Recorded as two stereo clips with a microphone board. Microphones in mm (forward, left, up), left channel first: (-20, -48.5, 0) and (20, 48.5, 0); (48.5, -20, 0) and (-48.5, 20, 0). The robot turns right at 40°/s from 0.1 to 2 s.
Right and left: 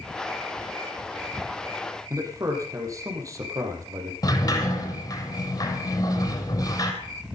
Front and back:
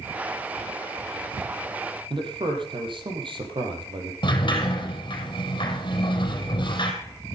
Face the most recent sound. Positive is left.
turn(degrees=-65)